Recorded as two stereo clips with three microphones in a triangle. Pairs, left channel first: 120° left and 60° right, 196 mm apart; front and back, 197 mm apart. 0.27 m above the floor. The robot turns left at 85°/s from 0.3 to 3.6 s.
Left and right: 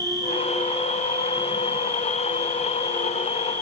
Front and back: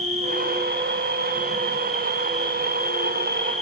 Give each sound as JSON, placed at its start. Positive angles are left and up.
{"t": 0.0, "sound": "an insect", "azimuth_deg": -130, "distance_m": 2.5}